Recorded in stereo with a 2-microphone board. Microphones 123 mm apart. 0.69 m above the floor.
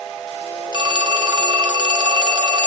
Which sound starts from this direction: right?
A phone ringing, at 0.7 s.